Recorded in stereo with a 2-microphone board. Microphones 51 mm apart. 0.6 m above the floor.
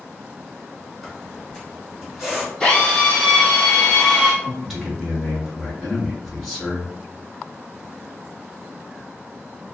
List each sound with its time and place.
1.0 s a squeak: 5° right (ahead or behind), 1.9 m
2.6 s a drill: 10° left (ahead or behind), 1.9 m
4.4 s a man speaking: centre (ahead or behind), 1.6 m